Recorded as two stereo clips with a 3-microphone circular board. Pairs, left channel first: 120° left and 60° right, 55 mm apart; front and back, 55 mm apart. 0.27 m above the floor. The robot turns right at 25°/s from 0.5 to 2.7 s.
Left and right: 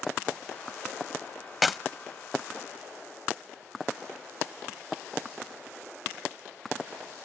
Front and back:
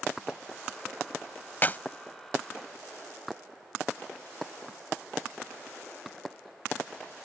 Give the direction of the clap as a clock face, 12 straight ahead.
11 o'clock.